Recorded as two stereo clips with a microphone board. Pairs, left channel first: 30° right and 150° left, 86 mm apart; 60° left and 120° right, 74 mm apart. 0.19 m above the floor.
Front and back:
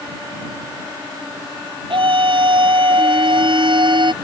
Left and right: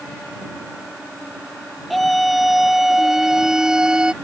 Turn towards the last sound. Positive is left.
turn(degrees=160)